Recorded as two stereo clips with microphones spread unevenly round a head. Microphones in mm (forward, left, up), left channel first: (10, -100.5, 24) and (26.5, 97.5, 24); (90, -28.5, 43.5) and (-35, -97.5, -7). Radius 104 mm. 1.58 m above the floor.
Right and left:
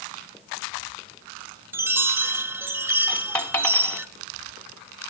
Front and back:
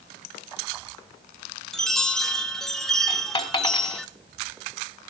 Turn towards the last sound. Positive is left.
turn(degrees=-15)